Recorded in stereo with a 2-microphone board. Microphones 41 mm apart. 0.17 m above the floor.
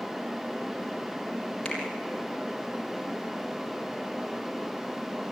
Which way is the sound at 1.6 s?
20° left (ahead or behind).